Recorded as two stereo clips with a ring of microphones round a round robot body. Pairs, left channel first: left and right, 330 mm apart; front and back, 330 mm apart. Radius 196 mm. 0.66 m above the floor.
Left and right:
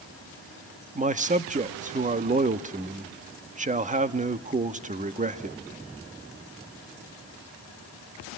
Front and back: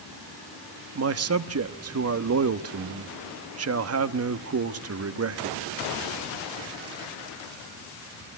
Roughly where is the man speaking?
Behind right.